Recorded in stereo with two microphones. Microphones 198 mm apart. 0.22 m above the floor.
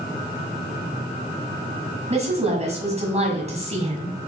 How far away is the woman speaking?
About 1.4 m.